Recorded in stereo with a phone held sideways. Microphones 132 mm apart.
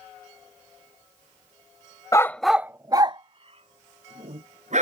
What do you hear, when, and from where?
2.1 s a dog barking: 25° left (ahead or behind); by 4.8 s 65° right (ahead or behind)